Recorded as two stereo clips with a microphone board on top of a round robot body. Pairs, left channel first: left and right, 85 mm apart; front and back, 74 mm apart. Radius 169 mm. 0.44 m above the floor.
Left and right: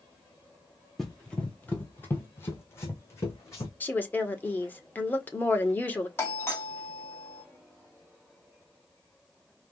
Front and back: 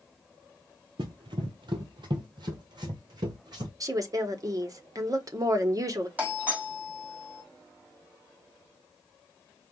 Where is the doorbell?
130° left, 2 m.